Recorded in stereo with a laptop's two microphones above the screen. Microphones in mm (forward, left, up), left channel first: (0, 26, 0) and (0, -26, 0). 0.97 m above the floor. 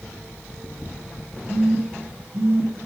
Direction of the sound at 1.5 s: 85° right.